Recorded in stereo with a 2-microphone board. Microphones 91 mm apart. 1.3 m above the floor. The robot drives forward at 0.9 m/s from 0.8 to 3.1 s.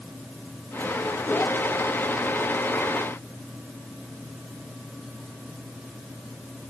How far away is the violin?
No violin in this recording.